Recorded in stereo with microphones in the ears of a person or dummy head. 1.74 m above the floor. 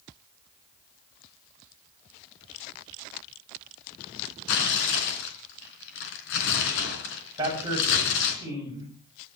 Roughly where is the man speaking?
Right.